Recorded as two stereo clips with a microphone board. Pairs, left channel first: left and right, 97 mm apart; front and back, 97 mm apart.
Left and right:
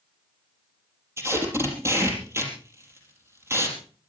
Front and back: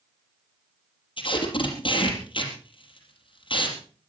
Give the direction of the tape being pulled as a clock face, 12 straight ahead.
1 o'clock.